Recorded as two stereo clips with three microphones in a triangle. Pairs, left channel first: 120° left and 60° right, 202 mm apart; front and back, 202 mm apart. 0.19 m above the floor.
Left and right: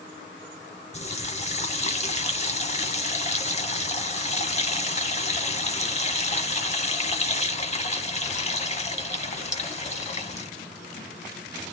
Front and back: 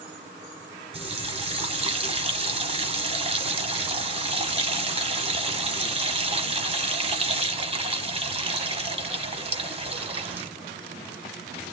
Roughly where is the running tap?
Behind left.